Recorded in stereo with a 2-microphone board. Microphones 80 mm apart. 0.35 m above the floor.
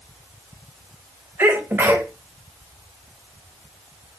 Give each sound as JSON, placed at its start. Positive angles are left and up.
{"t": 1.4, "sound": "a sneeze", "side_deg": -25, "distance_m": 0.9}